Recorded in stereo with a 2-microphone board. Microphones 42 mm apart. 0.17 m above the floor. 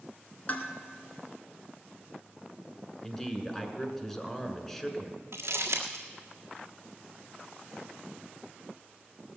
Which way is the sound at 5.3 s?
85° right.